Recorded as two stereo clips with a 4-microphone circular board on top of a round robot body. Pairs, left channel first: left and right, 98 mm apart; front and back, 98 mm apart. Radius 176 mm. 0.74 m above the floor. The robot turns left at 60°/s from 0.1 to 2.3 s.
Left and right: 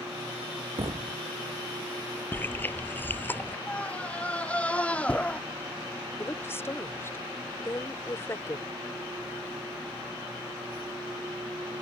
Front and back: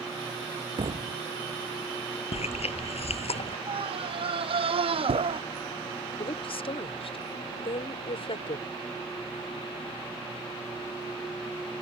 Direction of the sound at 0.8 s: 135° right.